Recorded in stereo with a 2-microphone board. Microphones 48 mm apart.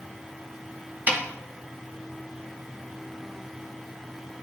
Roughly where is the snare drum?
Right.